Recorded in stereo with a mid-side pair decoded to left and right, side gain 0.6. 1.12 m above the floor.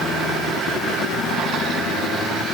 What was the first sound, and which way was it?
Only background noise.